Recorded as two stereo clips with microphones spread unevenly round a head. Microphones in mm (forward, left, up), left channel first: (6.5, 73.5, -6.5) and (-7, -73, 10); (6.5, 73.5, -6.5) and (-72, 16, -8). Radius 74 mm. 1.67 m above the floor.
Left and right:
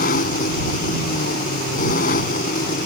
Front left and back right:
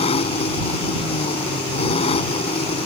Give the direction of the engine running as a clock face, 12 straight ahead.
10 o'clock.